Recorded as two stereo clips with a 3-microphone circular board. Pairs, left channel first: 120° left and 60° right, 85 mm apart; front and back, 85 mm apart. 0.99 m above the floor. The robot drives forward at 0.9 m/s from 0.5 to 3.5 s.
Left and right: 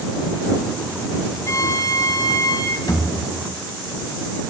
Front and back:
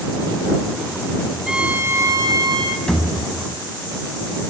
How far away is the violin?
About 0.7 m.